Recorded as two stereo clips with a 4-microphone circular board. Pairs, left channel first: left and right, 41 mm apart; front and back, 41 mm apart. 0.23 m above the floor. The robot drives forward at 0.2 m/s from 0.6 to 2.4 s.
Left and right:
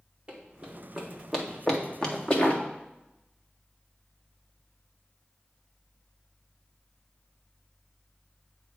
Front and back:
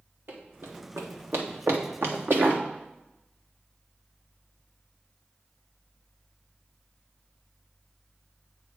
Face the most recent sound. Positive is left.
turn(degrees=145)